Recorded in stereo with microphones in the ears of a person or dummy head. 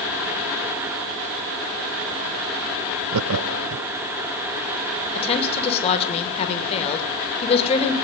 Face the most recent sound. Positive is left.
turn(degrees=35)  # may be behind; listen again after turning